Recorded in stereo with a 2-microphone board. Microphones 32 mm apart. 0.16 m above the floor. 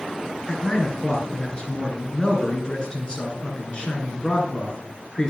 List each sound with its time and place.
0.5 s a man speaking: 25° left (ahead or behind), 2.5 m